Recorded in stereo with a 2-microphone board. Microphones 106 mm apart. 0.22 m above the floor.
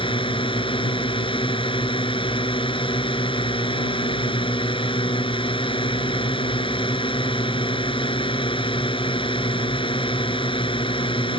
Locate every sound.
0.0 s a drone: 55° left (ahead or behind)